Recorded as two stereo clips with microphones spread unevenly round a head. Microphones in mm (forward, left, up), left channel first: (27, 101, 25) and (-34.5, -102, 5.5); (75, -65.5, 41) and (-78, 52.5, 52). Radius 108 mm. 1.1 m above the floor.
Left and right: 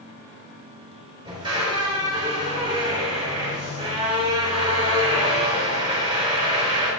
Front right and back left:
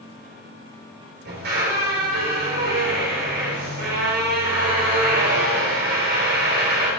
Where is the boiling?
No boiling in this recording.